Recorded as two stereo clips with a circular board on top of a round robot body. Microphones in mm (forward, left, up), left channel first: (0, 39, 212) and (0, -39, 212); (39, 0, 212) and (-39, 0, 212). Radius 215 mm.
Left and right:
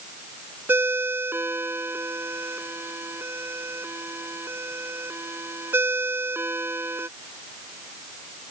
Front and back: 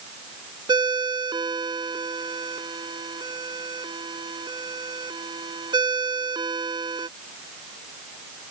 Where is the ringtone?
150° right.